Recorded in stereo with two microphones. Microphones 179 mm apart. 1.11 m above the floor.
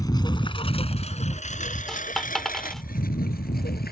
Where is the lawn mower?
20° left (ahead or behind); by 3.9 s 60° left (ahead or behind).